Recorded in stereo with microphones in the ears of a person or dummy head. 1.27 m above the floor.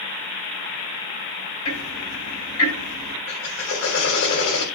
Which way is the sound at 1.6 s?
90° left.